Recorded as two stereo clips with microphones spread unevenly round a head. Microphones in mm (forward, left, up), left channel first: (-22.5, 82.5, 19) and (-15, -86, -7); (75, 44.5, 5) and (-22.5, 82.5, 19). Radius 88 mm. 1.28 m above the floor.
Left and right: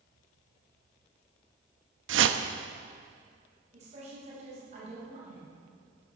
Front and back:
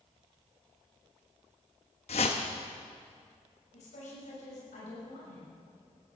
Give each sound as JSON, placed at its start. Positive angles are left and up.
{"t": 2.1, "sound": "a whoosh", "azimuth_deg": -70, "distance_m": 0.9}
{"t": 3.7, "sound": "a woman speaking", "azimuth_deg": -30, "distance_m": 6.5}